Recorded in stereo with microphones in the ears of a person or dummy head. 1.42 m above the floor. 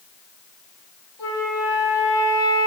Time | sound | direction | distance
1.2 | a flute | 10° right (ahead or behind) | 1.3 m